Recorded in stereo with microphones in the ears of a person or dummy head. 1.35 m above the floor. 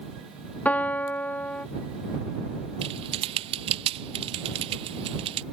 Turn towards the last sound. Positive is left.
turn(degrees=-35)  # may be behind; listen again after turning